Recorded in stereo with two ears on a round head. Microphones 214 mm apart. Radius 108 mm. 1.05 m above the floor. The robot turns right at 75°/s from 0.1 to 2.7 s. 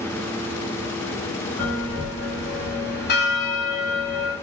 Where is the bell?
10° left, 0.8 m; by 4.3 s 95° left, 0.8 m.